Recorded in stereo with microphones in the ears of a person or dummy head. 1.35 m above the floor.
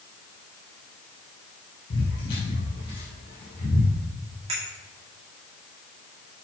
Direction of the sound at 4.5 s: 35° right (ahead or behind).